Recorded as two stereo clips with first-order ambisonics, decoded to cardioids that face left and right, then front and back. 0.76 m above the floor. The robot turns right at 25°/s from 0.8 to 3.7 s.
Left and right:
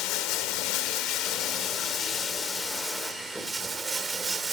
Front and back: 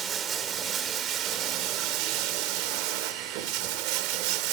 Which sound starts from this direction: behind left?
Running water, at 0.0 s.